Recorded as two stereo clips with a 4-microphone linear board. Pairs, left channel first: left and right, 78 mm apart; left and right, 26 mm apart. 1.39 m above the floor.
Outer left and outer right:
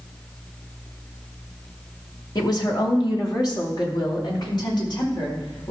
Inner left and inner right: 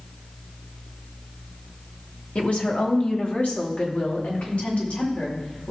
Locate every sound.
2.4 s a woman speaking: 60° left (ahead or behind), 1.9 m; by 5.7 s 75° left (ahead or behind), 5 m